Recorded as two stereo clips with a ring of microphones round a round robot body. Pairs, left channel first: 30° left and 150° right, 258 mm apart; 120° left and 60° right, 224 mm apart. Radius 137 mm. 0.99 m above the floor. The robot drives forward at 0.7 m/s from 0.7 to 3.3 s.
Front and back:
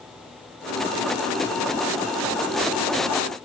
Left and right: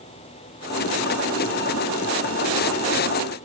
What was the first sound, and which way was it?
Only background noise.